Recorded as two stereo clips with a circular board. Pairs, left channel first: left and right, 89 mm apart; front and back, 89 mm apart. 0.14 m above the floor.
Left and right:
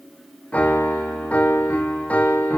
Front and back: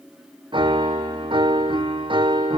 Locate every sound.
0.5 s a piano: 165° left, 1.3 m